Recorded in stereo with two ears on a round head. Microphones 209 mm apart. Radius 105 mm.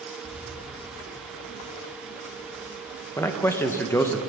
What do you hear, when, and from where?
0.2 s keys jangling: 5° right (ahead or behind), 2.5 m; by 3.1 s 20° left (ahead or behind), 5 m
3.2 s a man speaking: 10° left (ahead or behind), 0.8 m